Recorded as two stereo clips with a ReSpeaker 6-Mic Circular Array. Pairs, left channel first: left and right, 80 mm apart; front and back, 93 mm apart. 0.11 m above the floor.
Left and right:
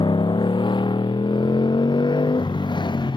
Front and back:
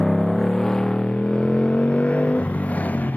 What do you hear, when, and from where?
0.0 s a motorcycle: 90° left; by 3.2 s 70° left